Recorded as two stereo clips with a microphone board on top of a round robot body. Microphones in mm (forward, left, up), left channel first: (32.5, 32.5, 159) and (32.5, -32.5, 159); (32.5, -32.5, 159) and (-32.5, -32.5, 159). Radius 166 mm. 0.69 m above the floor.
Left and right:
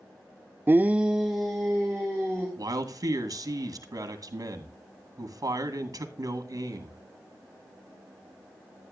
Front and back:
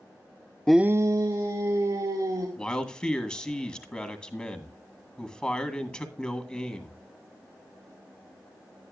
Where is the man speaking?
75° right, 2 m.